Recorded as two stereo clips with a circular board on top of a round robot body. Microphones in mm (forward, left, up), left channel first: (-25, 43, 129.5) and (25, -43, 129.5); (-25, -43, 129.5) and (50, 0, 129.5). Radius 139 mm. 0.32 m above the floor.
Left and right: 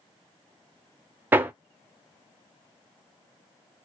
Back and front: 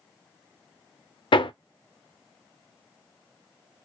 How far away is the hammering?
About 0.6 m.